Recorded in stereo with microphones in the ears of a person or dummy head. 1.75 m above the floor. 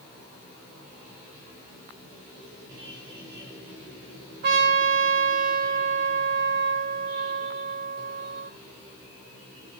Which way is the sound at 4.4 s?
60° right (ahead or behind).